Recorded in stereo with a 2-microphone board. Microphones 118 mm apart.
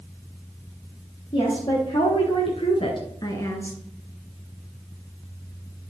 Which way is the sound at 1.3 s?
45° left (ahead or behind).